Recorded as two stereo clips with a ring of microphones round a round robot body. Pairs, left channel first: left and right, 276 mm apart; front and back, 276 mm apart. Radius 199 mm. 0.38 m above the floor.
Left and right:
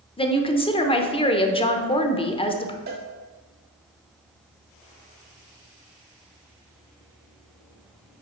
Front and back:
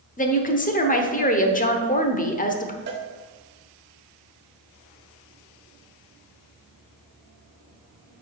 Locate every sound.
0.2 s a woman speaking: 35° left, 1.0 m
2.9 s a cowbell: 140° right, 0.7 m